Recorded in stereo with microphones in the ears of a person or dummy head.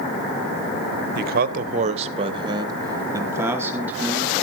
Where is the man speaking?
55° right (ahead or behind), 0.8 m; by 4.3 s 5° right (ahead or behind), 1.8 m.